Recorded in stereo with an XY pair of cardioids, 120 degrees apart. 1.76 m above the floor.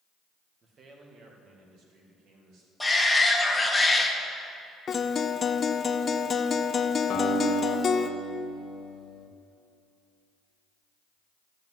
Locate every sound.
0.6 s a man speaking: 40° right, 2 m; by 2.7 s 75° right, 4 m
2.8 s a shout: 5° left, 2 m
4.9 s a guitar: 40° left, 0.7 m
7.1 s a guitar: 65° left, 1.7 m